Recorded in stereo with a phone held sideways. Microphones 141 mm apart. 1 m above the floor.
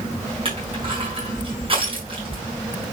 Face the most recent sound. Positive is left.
turn(degrees=-40)  # may be behind; listen again after turning